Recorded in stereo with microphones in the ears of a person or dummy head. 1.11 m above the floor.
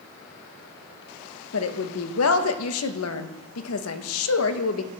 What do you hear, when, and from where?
1.5 s a woman speaking: 70° left (ahead or behind), 0.9 m